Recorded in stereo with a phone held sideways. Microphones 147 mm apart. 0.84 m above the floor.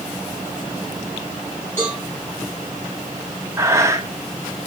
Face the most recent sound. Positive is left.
turn(degrees=-20)  # may be behind; listen again after turning